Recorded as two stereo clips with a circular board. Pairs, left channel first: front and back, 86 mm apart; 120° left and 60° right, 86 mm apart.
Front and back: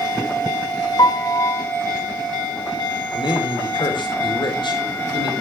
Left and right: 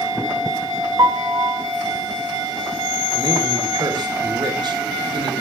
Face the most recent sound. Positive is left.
turn(degrees=-25)